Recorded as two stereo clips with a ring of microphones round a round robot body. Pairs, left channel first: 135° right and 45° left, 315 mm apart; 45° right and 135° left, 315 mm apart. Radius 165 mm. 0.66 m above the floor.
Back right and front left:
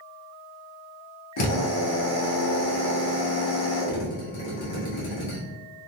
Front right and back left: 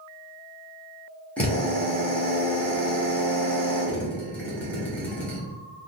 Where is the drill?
130° right, 1.3 m.